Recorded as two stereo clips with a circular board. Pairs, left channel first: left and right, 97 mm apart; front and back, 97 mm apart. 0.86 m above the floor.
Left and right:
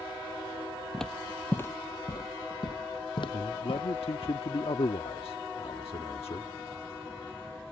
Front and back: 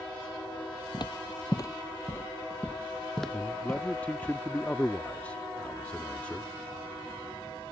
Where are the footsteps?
5° left; by 4.3 s 100° left.